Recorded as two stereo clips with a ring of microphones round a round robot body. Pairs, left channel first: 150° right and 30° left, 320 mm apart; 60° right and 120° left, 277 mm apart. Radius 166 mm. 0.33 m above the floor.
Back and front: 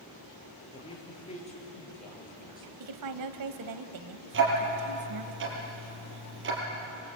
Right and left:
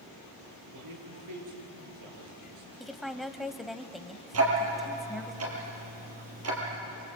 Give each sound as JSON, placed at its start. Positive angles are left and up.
{"t": 0.7, "sound": "a man speaking", "azimuth_deg": 135, "distance_m": 6.5}
{"t": 2.8, "sound": "a woman speaking", "azimuth_deg": 30, "distance_m": 1.7}
{"t": 4.3, "sound": "ticking", "azimuth_deg": 85, "distance_m": 5.5}